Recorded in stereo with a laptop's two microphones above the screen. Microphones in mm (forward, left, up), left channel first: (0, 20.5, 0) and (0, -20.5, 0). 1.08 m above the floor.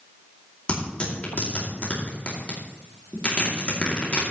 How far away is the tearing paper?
About 2.5 m.